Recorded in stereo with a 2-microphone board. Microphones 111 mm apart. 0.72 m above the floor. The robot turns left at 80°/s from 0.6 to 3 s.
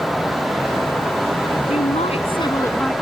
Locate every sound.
1.7 s a woman speaking: 105° left; by 2.9 s 5° left